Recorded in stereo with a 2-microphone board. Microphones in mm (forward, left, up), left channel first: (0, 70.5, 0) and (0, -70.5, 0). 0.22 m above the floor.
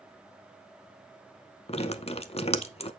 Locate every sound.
1.7 s dripping: 50° left (ahead or behind), 0.7 m